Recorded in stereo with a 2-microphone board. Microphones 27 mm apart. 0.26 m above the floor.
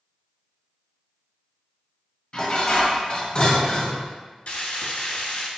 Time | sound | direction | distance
2.3 | dishes clattering | 40° left (ahead or behind) | 0.7 m
4.5 | frying | 60° left (ahead or behind) | 0.7 m